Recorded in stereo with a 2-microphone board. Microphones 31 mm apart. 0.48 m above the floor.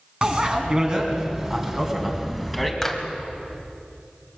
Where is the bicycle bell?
35° right (ahead or behind), 3.5 m; by 2.7 s centre (ahead or behind), 2.5 m.